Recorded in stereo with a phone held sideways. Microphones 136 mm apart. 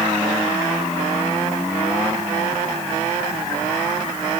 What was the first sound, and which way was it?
Only background noise.